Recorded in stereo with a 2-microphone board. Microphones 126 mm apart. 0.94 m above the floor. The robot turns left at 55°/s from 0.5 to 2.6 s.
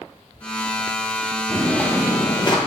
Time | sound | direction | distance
1.5 | footsteps | 5° right (ahead or behind) | 1.9 m